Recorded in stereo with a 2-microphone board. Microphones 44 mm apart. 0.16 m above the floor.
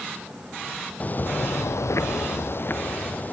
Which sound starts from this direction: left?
Footsteps, at 1.0 s.